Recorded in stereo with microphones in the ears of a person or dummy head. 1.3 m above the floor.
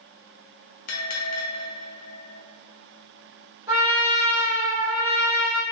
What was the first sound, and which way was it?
A bell, 40° left (ahead or behind).